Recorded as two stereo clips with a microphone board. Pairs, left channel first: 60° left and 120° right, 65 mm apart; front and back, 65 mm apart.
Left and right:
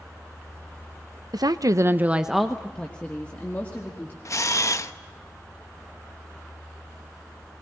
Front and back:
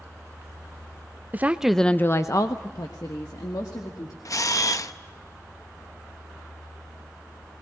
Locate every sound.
1.3 s a woman speaking: 120° right, 0.8 m; by 4.2 s straight ahead, 2.5 m
4.2 s a camera shutter: 25° left, 0.7 m